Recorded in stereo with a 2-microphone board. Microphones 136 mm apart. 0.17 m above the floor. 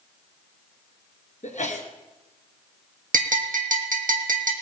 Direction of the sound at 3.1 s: 80° right.